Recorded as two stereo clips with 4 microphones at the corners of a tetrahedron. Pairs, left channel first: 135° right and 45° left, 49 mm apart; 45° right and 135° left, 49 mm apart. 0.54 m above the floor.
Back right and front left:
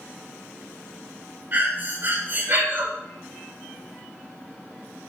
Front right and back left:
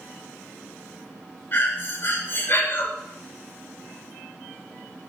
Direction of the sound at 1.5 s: Straight ahead.